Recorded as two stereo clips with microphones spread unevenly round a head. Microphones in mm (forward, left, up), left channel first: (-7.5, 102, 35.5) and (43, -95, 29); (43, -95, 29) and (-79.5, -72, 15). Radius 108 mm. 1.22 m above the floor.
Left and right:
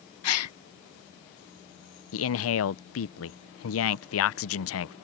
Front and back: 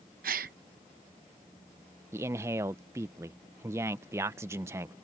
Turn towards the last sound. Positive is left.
turn(degrees=95)